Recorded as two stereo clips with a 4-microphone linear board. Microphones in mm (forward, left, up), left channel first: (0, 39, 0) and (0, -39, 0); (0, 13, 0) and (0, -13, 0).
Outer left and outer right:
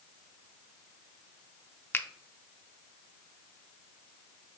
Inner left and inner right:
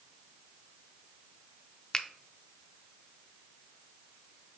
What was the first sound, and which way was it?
A finger snap, 25° left (ahead or behind).